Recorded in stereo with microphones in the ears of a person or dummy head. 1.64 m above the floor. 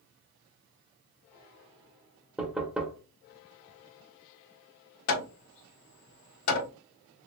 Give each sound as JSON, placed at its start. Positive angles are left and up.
{"t": 2.4, "sound": "knocking", "side_deg": -5, "distance_m": 0.8}
{"t": 5.1, "sound": "hammering", "side_deg": 75, "distance_m": 1.3}